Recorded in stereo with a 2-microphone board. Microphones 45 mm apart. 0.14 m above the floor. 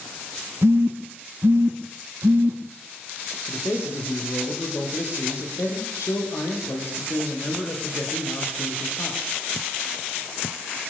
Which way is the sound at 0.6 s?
65° right (ahead or behind).